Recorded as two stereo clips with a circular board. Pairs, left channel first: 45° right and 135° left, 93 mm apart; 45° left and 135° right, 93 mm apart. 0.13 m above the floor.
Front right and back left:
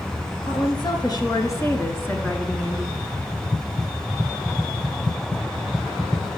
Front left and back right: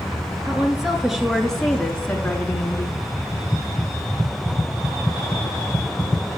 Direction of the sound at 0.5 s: 55° right.